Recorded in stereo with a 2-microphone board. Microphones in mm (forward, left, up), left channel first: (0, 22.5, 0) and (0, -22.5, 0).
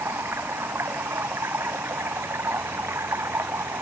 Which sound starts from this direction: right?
Running water, at 0.0 s.